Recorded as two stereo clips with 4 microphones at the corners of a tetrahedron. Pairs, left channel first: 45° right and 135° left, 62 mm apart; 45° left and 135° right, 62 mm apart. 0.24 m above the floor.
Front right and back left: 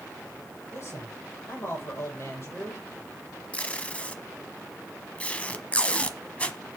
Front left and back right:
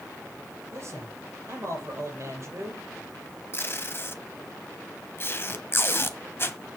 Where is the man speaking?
95° right, 7 m.